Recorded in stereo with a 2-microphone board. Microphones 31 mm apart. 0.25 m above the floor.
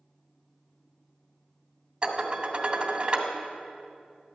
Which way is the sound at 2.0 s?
35° right (ahead or behind).